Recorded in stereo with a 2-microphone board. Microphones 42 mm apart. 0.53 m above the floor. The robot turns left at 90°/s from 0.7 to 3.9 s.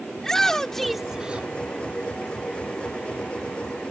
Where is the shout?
15° left; by 1.5 s 55° right.